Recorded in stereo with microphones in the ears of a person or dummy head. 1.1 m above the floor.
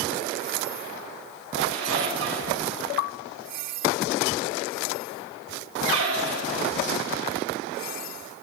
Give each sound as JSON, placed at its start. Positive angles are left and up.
{"t": 1.6, "sound": "a squeak", "side_deg": -80, "distance_m": 3.0}